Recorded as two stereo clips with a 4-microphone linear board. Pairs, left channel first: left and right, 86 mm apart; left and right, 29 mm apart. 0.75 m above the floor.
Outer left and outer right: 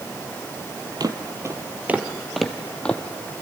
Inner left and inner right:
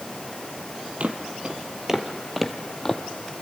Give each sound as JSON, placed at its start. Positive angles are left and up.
{"t": 1.0, "sound": "footsteps", "side_deg": -50, "distance_m": 1.3}